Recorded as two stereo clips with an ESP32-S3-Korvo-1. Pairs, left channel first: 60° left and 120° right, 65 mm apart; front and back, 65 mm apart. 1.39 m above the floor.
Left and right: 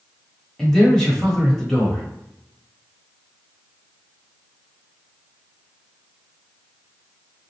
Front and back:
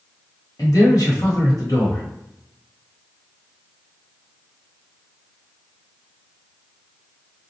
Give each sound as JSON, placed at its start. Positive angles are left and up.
{"t": 0.6, "sound": "a man speaking", "azimuth_deg": -20, "distance_m": 1.1}